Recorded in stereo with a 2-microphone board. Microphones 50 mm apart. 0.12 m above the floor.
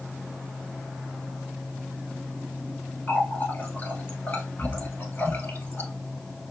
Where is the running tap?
40° left (ahead or behind), 1.4 m.